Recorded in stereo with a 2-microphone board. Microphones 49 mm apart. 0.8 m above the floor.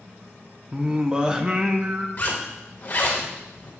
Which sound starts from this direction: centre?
Singing, at 0.7 s.